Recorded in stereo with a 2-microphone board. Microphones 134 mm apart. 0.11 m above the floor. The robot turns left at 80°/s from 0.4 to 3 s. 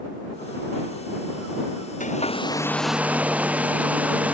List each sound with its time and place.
2.0 s a hair dryer: 70° left; by 4.3 s 10° right